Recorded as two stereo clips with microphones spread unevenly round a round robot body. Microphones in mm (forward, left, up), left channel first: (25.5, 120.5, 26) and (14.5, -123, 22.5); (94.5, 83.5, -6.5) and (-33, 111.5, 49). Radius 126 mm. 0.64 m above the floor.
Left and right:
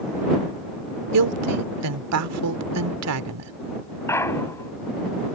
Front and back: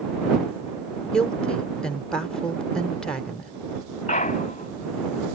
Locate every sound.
1.1 s a woman speaking: 90° right
4.1 s a clunk: 10° left